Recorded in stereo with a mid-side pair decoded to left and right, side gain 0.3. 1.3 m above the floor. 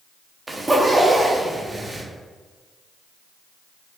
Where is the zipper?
30° right, 0.9 m.